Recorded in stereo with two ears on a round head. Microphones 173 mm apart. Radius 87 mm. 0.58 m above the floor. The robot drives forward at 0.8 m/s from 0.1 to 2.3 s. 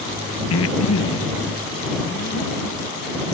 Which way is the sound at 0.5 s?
80° left.